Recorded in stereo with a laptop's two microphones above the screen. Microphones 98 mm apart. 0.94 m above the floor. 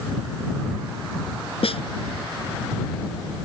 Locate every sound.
1.6 s a snare drum: 70° left (ahead or behind)